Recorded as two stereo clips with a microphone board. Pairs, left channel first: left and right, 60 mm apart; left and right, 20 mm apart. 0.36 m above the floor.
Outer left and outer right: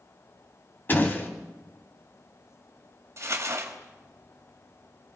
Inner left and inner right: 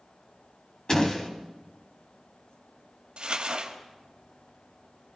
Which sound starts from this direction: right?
Crumpling, at 3.2 s.